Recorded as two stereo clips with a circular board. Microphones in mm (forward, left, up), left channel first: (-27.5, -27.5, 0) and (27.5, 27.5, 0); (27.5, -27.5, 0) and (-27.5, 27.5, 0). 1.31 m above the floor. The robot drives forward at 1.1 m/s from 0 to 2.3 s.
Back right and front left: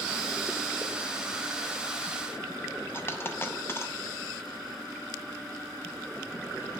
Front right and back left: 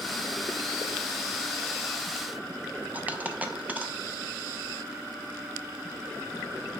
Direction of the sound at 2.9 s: 170° right.